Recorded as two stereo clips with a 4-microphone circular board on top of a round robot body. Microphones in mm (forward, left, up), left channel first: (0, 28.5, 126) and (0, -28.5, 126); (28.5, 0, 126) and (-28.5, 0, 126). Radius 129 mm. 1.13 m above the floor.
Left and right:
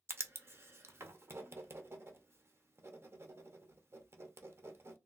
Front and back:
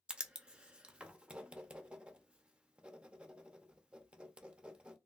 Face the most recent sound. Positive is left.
turn(degrees=-110)